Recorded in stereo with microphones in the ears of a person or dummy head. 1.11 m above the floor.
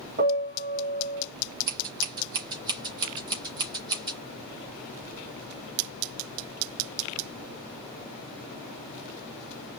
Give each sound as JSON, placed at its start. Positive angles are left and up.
{"t": 0.2, "sound": "a piano", "side_deg": -45, "distance_m": 2.5}
{"t": 1.7, "sound": "scissors", "side_deg": -25, "distance_m": 2.5}